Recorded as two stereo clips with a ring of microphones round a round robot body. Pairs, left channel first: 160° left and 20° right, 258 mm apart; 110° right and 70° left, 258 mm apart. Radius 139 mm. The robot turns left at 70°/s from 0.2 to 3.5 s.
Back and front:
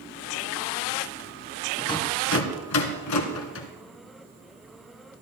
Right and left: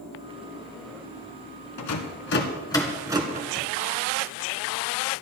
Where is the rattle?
120° right, 2 m; by 3.7 s 120° left, 2 m.